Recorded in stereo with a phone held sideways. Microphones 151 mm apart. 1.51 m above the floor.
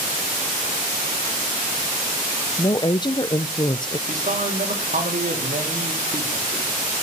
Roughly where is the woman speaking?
Left.